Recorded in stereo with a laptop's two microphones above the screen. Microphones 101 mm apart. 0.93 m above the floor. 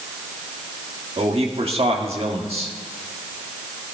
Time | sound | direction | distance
1.2 | a man speaking | 70° right (ahead or behind) | 1.6 m